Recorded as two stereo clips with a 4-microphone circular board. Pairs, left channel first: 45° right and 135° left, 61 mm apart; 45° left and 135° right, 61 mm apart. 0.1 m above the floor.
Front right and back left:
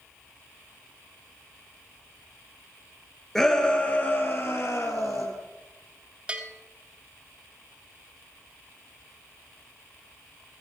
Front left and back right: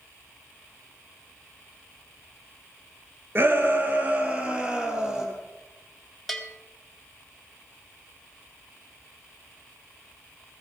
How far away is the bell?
About 1.2 m.